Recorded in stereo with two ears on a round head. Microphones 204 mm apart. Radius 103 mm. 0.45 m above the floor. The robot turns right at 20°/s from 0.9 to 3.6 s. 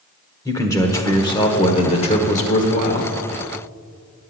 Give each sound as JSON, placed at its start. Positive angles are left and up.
{"t": 0.5, "sound": "a man speaking", "azimuth_deg": 25, "distance_m": 1.3}